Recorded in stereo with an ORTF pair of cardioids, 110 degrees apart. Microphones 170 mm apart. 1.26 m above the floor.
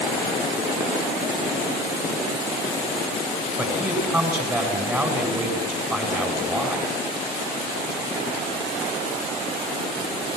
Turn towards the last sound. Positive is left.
turn(degrees=-10)